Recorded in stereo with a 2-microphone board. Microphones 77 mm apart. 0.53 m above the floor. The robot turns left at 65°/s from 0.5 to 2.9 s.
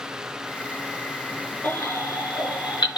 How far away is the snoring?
I don't hear snoring.